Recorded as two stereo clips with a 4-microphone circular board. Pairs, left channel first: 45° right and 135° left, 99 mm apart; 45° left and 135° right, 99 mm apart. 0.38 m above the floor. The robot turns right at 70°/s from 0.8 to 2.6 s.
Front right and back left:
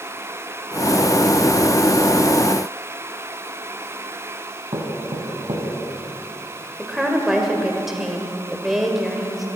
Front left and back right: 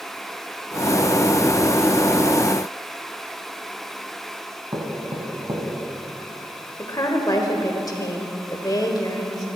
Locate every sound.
4.7 s knocking: 170° left, 2 m
6.8 s a woman speaking: 50° left, 1.6 m